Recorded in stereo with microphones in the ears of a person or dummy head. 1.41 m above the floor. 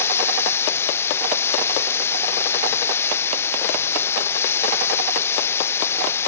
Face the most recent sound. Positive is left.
turn(degrees=15)  # may be behind; listen again after turning